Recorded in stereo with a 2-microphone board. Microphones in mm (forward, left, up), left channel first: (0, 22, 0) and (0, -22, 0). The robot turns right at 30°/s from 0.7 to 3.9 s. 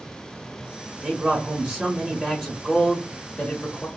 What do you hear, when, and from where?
1.0 s a man speaking: 10° right (ahead or behind), 0.8 m; by 3.9 s 25° left (ahead or behind), 0.8 m